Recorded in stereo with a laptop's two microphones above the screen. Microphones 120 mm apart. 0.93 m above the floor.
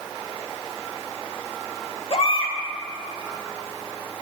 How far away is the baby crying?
About 1.0 m.